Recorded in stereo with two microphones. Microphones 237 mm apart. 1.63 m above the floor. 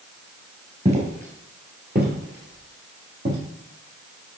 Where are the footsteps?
25° right (ahead or behind), 1.9 m; by 3.4 s 50° right (ahead or behind), 3 m.